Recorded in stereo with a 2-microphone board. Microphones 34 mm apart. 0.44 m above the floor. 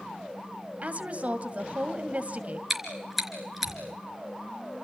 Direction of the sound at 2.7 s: 5° right (ahead or behind).